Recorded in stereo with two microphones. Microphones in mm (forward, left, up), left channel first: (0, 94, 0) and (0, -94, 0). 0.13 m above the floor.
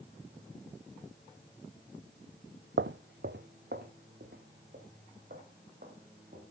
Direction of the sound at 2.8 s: 80° right.